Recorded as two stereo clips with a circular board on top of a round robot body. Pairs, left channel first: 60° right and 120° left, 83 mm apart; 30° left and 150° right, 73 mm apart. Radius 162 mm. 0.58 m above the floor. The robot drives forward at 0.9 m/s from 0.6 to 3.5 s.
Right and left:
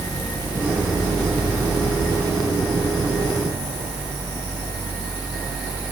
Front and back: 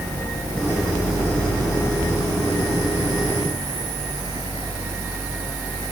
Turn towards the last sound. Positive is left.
No sound to turn to.